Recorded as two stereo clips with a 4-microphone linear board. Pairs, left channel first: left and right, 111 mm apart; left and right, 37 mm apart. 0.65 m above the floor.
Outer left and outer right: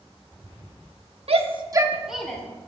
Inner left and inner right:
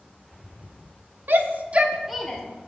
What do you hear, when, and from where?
1.3 s a shout: 65° right (ahead or behind), 1.1 m; by 2.4 s 10° left (ahead or behind), 1.4 m